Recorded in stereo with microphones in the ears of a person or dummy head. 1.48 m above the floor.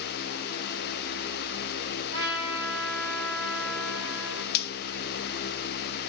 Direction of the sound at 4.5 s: 60° left (ahead or behind).